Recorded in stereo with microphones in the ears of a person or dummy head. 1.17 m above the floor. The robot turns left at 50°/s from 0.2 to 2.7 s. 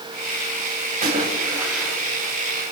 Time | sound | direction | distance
1.0 | a splash | 140° right | 2.5 m